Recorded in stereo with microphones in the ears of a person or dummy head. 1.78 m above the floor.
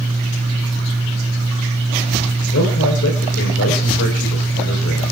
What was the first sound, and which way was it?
A man speaking, 65° left (ahead or behind).